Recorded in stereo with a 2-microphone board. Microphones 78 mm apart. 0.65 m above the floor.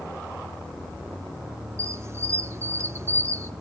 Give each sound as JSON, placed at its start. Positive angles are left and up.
{"t": 1.8, "sound": "a squeak", "side_deg": -35, "distance_m": 0.6}